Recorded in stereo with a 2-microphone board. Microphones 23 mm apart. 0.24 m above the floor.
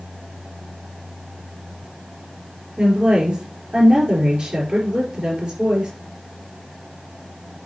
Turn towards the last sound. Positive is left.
turn(degrees=-45)  # may be behind; listen again after turning